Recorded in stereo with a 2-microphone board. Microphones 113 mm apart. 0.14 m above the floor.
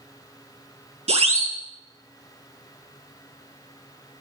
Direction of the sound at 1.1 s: 65° right (ahead or behind).